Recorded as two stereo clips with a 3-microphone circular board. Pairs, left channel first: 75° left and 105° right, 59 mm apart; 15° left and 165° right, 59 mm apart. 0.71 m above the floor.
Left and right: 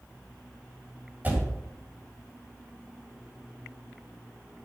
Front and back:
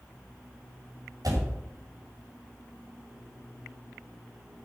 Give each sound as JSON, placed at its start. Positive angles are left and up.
{"t": 1.2, "sound": "a door slam", "azimuth_deg": -165, "distance_m": 2.5}